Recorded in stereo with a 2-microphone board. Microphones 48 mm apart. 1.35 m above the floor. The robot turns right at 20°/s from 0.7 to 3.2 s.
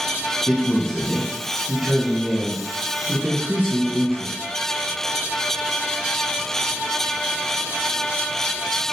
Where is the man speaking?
165° left, 1.0 m; by 4.3 s 145° right, 1.0 m.